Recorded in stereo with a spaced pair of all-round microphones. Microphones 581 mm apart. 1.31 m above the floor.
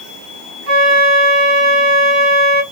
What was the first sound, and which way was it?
A flute, 40° left (ahead or behind).